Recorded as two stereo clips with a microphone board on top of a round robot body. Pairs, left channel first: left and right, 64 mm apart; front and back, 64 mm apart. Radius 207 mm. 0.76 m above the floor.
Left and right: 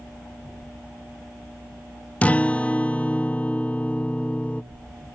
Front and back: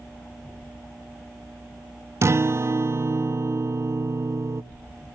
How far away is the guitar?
About 0.6 m.